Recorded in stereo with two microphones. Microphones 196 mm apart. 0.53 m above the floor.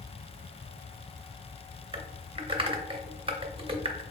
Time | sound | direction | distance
1.9 | typing on a keyboard | 30° right (ahead or behind) | 0.7 m